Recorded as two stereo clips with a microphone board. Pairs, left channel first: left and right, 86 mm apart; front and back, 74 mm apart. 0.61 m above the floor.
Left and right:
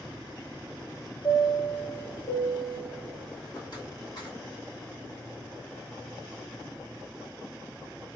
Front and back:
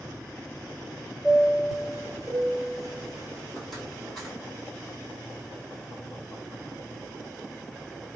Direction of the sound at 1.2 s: 85° left.